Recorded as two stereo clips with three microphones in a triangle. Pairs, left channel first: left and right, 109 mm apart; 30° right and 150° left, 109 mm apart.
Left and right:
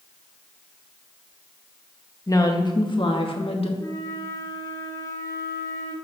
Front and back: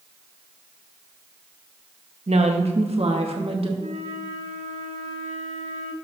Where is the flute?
150° left, 1.9 m.